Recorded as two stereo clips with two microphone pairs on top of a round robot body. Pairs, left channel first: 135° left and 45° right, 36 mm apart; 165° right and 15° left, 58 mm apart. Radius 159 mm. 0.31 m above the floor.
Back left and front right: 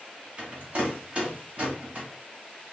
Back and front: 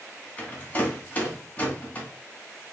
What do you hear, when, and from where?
0.4 s a rattle: 100° right, 1.0 m